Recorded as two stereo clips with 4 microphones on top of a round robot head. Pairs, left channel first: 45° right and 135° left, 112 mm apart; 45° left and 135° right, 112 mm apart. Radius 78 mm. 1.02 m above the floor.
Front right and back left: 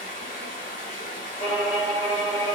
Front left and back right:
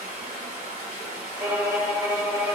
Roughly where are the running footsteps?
I don't hear running footsteps.